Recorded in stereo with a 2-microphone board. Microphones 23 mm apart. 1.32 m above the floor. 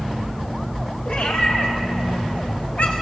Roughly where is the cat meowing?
Left.